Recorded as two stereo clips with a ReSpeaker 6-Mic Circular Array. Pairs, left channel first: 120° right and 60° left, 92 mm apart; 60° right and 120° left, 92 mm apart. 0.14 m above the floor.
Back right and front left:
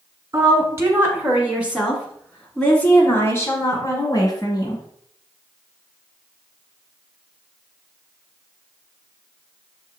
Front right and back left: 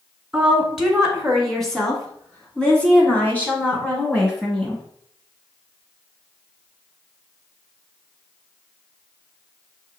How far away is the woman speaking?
About 1.9 m.